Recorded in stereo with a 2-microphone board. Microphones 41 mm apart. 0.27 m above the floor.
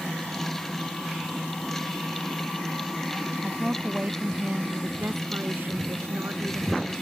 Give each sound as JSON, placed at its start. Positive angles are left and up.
{"t": 3.4, "sound": "a woman speaking", "side_deg": -5}